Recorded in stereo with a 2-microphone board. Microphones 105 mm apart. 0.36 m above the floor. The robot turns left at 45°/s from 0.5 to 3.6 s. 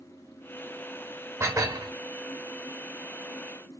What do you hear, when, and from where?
1.4 s dishes clattering: 25° right (ahead or behind), 0.6 m; by 1.9 s 35° right (ahead or behind), 0.6 m